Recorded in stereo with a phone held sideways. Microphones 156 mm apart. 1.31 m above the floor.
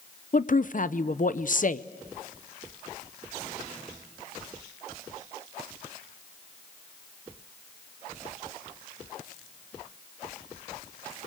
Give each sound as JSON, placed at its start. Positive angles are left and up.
{"t": 0.3, "sound": "a woman speaking", "side_deg": 60, "distance_m": 0.7}